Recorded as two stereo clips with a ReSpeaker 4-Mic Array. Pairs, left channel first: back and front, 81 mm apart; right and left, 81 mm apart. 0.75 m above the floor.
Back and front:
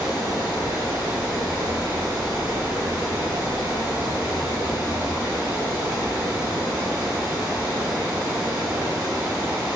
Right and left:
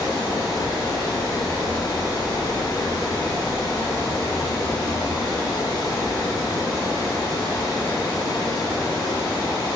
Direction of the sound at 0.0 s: 65° right.